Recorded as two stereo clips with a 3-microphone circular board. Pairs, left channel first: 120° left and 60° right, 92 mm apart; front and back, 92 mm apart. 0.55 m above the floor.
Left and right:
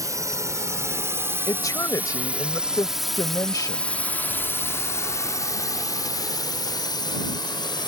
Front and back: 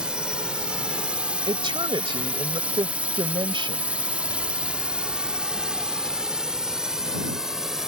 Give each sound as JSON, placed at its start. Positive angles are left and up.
{"t": 0.0, "sound": "a drone", "azimuth_deg": -100}
{"t": 1.5, "sound": "a woman speaking", "azimuth_deg": 165}